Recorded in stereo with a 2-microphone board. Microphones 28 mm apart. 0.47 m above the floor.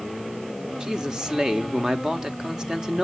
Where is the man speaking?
25° right (ahead or behind), 1.0 m.